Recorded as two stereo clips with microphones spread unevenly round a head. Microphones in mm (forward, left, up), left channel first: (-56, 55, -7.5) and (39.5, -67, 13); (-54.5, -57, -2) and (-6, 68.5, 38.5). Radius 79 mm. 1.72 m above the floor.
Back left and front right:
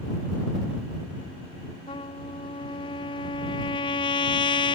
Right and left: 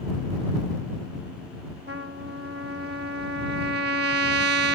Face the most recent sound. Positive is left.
turn(degrees=65)